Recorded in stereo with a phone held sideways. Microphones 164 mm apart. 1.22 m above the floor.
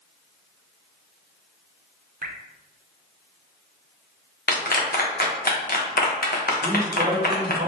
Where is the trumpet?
No trumpet in this recording.